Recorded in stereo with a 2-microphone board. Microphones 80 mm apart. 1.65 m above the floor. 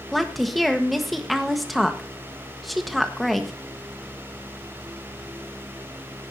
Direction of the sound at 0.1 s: Centre (ahead or behind).